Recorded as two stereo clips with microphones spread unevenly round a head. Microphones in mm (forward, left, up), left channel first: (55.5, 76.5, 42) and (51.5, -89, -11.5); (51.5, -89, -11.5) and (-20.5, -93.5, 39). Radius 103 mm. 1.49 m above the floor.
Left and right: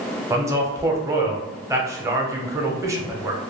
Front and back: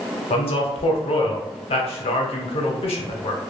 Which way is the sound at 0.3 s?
10° right.